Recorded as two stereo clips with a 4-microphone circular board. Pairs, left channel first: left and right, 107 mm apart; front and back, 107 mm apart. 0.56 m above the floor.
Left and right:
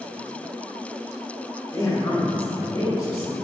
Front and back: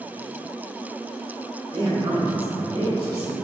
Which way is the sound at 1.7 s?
145° left.